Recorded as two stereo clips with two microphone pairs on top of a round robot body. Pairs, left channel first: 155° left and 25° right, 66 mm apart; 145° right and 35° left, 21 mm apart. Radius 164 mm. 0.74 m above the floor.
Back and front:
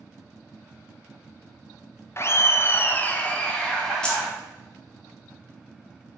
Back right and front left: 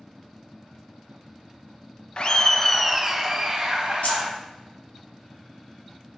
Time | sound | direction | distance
2.2 | laughter | 170° left | 0.6 m
4.0 | keys jangling | 130° right | 0.9 m